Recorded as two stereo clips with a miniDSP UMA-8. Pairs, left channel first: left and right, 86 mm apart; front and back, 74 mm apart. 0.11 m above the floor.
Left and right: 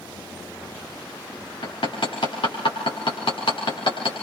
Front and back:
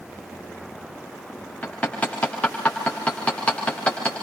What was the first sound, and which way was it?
Hammering, 75° left.